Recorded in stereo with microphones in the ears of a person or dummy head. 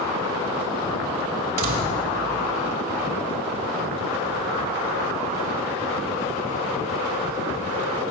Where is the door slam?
40° right (ahead or behind), 4 m.